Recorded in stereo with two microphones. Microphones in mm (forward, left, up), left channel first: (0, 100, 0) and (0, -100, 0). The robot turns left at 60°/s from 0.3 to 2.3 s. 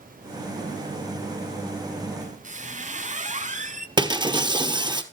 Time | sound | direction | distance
2.2 | a squeak | 35° right (ahead or behind) | 0.7 m
4.0 | breaking glass | 25° right (ahead or behind) | 1.1 m